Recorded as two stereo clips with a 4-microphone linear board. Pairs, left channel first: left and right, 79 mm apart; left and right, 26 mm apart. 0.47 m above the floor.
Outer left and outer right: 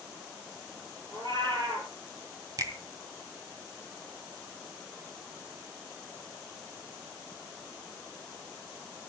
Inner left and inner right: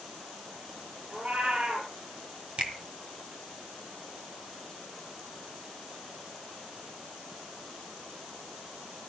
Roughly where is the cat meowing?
Right.